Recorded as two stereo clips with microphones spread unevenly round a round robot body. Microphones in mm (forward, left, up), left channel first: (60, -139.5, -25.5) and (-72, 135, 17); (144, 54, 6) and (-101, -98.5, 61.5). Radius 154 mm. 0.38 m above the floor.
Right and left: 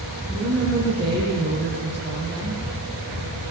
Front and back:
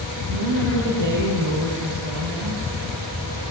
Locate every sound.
0.3 s a woman speaking: 150° right, 7.5 m